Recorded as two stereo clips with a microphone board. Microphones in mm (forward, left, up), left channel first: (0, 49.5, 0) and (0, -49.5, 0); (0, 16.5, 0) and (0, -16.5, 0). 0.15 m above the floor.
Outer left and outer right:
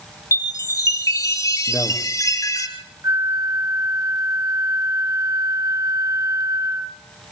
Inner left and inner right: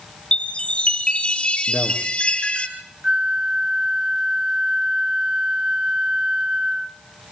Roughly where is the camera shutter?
I don't hear a camera shutter.